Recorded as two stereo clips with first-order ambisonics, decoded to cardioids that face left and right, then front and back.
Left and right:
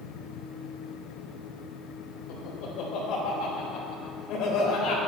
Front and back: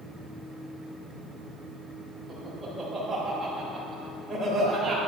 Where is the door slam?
No door slam in this recording.